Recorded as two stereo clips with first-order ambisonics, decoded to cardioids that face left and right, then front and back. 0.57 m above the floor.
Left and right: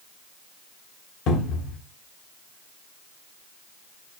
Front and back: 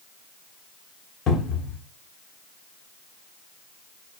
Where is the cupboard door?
55° left, 1.0 m.